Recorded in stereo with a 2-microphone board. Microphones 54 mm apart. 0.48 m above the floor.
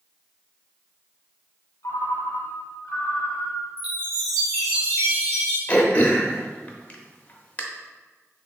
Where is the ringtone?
75° left (ahead or behind), 0.8 m.